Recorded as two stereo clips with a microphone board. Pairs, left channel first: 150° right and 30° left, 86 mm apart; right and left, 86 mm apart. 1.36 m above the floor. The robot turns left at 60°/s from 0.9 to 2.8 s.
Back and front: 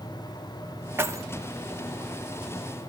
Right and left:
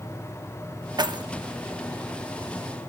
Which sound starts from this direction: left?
Keys jangling, at 1.0 s.